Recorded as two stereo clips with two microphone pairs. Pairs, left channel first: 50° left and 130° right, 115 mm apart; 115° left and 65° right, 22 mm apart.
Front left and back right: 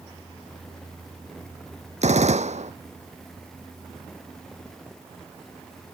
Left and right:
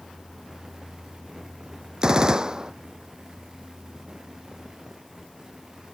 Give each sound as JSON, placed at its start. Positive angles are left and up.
{"t": 2.0, "sound": "a gunshot", "azimuth_deg": -120}